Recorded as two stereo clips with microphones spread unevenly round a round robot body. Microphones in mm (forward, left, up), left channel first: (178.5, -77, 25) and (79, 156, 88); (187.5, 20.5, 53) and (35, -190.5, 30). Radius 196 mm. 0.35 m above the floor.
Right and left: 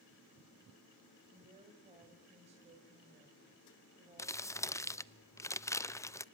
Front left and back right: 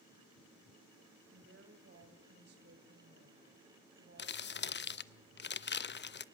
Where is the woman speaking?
170° right, 2 m.